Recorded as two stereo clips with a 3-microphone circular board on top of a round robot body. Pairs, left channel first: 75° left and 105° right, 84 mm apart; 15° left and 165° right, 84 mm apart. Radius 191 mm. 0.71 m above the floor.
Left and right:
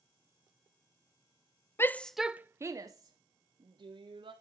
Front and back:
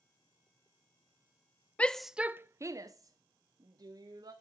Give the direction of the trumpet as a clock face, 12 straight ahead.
I don't hear a trumpet.